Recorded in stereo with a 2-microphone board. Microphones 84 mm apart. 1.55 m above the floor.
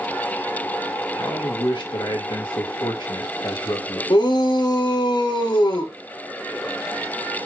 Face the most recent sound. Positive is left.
turn(degrees=60)  # may be behind; listen again after turning